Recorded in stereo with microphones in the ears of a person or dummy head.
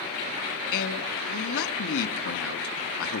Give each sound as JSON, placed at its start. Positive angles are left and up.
{"t": 0.7, "sound": "a man speaking", "side_deg": 75, "distance_m": 3.0}